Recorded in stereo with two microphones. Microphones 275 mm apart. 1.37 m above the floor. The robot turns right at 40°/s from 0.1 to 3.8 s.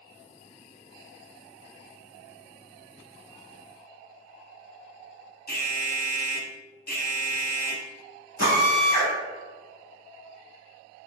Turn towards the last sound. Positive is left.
turn(degrees=75)  # may be behind; listen again after turning